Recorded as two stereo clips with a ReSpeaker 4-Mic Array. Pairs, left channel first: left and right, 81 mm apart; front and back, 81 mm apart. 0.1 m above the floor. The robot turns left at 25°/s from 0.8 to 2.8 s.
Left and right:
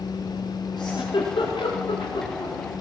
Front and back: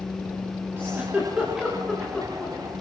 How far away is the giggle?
About 9.5 m.